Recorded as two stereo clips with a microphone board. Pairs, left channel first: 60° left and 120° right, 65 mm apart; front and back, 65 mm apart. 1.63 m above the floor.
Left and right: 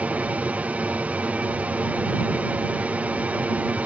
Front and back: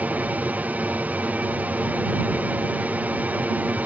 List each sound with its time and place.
0.0 s an aircraft: 155° right